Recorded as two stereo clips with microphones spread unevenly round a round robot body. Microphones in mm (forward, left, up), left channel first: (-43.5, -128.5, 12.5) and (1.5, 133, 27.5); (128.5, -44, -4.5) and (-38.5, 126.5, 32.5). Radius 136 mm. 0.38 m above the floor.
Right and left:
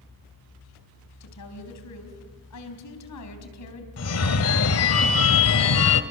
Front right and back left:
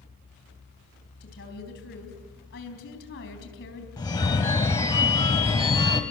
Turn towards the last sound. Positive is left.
turn(degrees=-120)